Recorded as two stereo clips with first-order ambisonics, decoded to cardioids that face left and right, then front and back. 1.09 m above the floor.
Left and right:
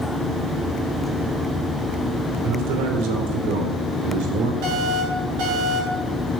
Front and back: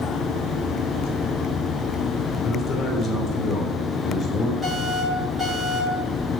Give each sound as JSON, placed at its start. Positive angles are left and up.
{"t": 2.4, "sound": "a man speaking", "azimuth_deg": -65, "distance_m": 3.5}
{"t": 4.6, "sound": "an alarm", "azimuth_deg": -95, "distance_m": 9.0}